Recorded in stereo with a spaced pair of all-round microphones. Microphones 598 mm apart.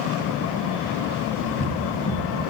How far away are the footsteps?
About 1.9 m.